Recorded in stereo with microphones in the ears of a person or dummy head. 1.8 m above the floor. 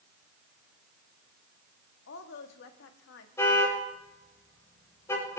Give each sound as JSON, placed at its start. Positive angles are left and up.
{"t": 2.1, "sound": "a woman speaking", "side_deg": 60, "distance_m": 1.8}
{"t": 3.4, "sound": "a car horn", "side_deg": 20, "distance_m": 5.0}